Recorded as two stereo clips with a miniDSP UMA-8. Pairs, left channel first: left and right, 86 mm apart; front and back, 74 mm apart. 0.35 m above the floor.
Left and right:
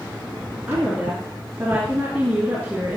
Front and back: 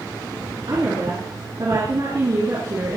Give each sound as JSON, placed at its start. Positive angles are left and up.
{"t": 0.7, "sound": "a woman speaking", "azimuth_deg": -160, "distance_m": 4.0}